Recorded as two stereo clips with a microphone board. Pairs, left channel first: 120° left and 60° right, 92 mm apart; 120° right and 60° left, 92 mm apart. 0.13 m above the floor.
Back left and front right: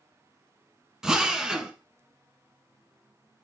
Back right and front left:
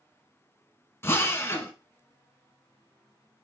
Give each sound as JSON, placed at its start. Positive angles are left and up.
{"t": 1.0, "sound": "a drill", "azimuth_deg": -130, "distance_m": 0.7}